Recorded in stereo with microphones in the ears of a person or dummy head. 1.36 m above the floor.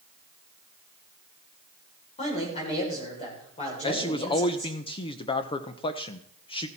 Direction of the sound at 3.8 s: 25° left (ahead or behind).